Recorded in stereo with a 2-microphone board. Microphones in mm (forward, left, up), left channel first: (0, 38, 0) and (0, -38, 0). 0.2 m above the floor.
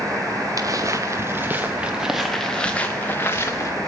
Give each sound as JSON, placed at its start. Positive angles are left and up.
{"t": 0.6, "sound": "footsteps", "side_deg": -50, "distance_m": 1.8}